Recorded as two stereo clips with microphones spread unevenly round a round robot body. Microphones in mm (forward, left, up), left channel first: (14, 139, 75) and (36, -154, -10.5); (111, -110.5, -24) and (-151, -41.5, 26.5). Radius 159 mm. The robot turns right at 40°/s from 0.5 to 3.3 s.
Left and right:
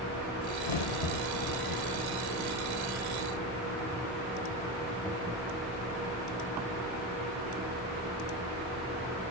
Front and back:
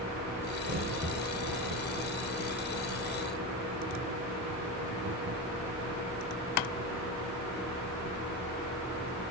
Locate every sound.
0.6 s a crack: 90° left, 1.1 m; by 8.2 s 165° right, 1.1 m